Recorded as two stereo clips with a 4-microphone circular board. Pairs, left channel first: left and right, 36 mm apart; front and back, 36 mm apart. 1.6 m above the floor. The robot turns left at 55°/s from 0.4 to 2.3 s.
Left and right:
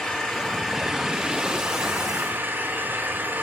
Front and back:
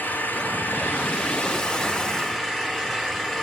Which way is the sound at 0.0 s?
30° left.